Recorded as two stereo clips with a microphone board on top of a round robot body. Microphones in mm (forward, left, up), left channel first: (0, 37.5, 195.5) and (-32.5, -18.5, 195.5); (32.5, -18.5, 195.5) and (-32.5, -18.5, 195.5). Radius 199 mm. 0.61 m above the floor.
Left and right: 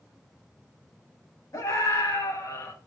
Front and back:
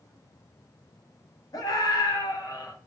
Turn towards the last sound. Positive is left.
turn(degrees=30)